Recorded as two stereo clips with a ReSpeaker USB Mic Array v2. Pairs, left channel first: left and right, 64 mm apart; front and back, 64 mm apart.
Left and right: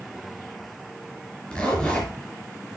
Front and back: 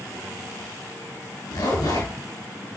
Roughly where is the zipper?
Ahead.